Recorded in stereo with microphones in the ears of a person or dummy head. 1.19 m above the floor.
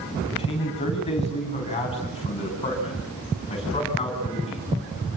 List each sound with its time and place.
0.2 s a man speaking: 25° left (ahead or behind), 8.5 m